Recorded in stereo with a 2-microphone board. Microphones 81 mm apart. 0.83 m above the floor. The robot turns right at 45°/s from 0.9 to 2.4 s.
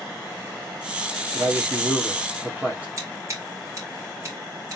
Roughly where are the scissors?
Right.